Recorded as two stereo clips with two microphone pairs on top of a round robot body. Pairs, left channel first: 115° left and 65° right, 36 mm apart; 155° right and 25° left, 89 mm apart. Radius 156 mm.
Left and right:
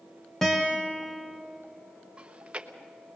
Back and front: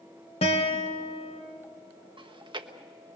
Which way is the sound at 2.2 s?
5° left.